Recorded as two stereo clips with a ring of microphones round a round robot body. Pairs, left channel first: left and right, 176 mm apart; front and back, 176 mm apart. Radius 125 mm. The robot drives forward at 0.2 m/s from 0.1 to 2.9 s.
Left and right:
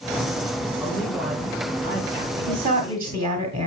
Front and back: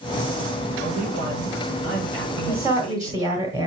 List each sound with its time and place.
0.8 s a man speaking: 170° right, 3.5 m; by 3.3 s 175° right, 4 m
2.5 s a woman speaking: 120° right, 1.4 m; by 3.7 s 125° right, 1.4 m